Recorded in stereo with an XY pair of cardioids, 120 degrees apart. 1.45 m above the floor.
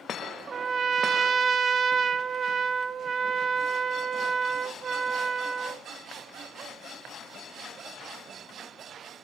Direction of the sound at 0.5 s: 35° right.